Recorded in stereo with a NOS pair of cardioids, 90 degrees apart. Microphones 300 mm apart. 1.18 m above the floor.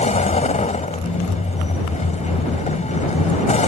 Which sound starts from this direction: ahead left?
A vehicle, at 0.0 s.